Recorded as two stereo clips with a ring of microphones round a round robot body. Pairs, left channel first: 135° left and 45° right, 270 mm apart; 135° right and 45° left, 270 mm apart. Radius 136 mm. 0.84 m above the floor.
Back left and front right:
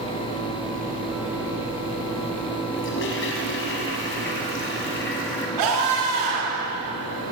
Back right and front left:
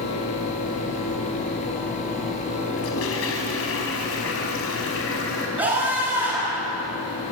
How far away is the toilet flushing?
About 5 m.